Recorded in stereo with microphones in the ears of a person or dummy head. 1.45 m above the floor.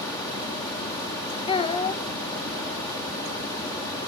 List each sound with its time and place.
1.5 s a child speaking: 25° left (ahead or behind), 0.7 m